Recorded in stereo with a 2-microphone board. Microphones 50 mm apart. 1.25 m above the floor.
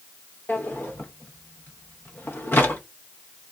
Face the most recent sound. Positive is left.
turn(degrees=45)  # may be behind; listen again after turning